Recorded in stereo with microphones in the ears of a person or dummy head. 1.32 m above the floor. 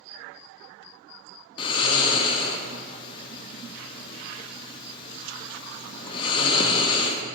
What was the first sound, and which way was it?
Snoring, 20° left (ahead or behind).